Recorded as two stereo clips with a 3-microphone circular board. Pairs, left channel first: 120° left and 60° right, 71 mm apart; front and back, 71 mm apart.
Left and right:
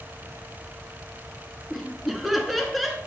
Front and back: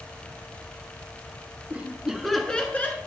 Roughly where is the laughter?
Behind right.